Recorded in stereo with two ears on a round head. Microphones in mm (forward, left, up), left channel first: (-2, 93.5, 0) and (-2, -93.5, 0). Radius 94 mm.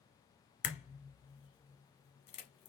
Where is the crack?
30° left (ahead or behind), 0.9 m.